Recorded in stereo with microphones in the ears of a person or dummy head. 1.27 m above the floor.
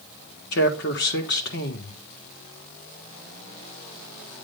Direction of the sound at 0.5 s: 60° left (ahead or behind).